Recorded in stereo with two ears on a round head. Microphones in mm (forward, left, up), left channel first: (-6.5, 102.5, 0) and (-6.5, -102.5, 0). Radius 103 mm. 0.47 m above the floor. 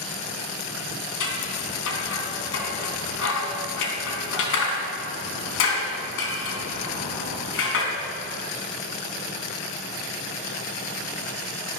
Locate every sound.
1.2 s scissors: 60° left (ahead or behind), 4 m